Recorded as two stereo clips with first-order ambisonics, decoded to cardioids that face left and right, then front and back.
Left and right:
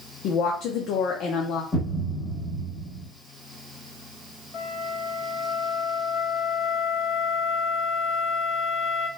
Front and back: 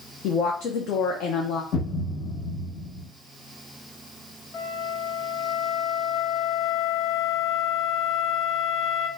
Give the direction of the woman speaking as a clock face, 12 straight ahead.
10 o'clock.